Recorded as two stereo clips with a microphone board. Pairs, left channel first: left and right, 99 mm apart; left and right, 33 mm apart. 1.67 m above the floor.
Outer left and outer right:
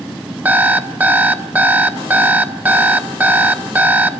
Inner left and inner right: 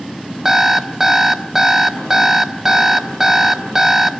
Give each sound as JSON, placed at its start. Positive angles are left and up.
{"t": 0.5, "sound": "an alarm clock", "side_deg": -20, "distance_m": 1.3}